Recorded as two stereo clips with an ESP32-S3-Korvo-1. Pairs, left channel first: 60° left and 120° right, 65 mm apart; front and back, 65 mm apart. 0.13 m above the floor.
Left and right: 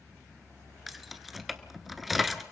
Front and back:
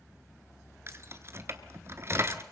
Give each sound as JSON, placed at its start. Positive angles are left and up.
{"t": 0.9, "sound": "keys jangling", "azimuth_deg": 150, "distance_m": 1.1}